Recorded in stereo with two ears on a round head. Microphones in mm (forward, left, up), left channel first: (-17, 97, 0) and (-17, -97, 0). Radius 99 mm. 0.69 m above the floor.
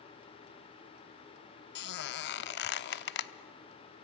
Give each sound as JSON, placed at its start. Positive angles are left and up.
{"t": 1.8, "sound": "a squeak", "side_deg": 55, "distance_m": 0.7}